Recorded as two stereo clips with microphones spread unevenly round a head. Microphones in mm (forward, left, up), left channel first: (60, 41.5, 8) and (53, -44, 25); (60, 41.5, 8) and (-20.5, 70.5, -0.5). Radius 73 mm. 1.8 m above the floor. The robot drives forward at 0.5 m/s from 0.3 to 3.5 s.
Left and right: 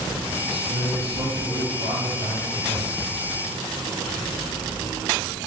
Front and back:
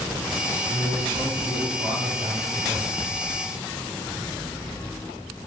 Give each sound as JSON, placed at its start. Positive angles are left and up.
{"t": 0.4, "sound": "a man speaking", "azimuth_deg": -135, "distance_m": 4.0}